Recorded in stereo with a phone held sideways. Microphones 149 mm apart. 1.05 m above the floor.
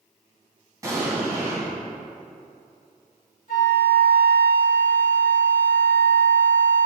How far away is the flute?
About 2.5 m.